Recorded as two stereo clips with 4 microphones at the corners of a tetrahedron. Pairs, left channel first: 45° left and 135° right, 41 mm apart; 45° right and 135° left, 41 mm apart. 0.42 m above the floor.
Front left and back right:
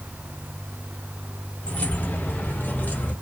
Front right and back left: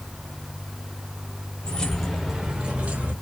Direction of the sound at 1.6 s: 5° left.